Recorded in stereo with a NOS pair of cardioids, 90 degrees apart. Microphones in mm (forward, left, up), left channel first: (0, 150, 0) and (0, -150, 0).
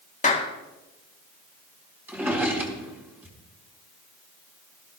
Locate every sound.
0.2 s a clap: 25° left, 1.5 m
2.1 s a drawer: 5° right, 3.5 m